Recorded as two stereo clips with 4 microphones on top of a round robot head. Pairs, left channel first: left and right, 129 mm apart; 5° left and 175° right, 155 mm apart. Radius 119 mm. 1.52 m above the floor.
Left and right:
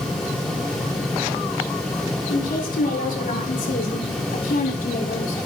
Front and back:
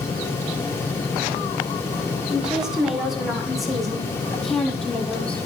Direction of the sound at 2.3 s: 100° left.